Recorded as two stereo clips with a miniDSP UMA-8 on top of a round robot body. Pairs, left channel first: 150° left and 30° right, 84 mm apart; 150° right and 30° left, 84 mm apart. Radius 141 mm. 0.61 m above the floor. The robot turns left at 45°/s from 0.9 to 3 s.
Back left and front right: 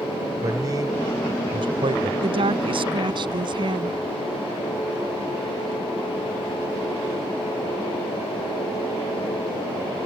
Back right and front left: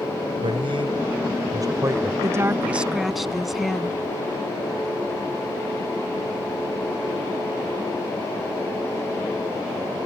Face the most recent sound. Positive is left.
turn(degrees=-60)